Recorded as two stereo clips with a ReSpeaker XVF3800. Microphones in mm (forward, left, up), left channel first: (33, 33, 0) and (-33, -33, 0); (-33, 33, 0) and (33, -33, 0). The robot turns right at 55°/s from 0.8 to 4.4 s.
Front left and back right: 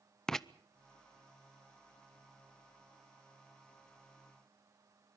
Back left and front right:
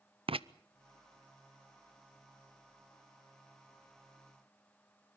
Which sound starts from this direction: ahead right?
Writing, at 0.3 s.